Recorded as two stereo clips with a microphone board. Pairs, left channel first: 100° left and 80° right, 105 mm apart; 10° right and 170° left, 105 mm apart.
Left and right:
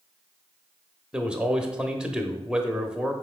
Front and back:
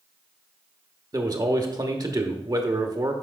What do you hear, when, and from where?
1.1 s a man speaking: 155° right, 1.1 m